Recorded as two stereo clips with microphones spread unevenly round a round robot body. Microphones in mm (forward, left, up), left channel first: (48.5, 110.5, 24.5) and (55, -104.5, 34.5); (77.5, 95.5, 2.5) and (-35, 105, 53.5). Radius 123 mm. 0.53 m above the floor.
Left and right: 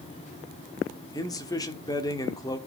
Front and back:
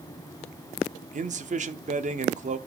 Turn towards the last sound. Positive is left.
turn(degrees=160)